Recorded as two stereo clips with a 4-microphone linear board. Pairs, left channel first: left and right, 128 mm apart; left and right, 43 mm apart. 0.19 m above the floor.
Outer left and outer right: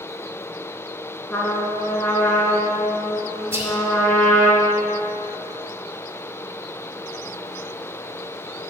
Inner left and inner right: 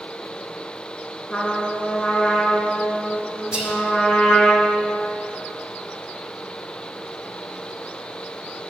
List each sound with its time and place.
1.3 s a trumpet: 10° left (ahead or behind), 2 m
3.5 s whispering: 20° right (ahead or behind), 1.5 m